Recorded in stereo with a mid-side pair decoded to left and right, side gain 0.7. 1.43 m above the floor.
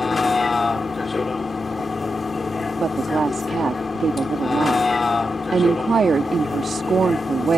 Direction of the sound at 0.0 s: 15° left.